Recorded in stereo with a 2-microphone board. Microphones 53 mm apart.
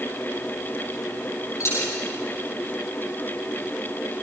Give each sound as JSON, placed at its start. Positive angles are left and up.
{"t": 1.6, "sound": "a dropped coin", "side_deg": 60, "distance_m": 8.0}